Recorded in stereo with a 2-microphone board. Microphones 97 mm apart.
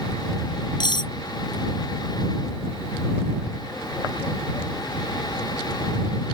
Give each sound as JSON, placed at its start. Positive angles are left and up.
{"t": 0.8, "sound": "cutlery clinking", "side_deg": 50}